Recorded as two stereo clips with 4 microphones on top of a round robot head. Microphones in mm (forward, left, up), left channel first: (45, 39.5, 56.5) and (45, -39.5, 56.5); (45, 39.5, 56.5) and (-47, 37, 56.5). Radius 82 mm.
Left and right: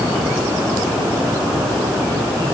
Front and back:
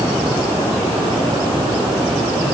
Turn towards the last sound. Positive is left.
No sound to turn to.